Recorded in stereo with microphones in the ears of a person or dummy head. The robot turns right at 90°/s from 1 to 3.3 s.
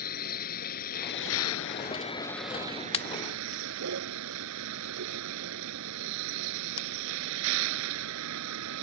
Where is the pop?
30° left (ahead or behind); by 6.9 s 60° left (ahead or behind).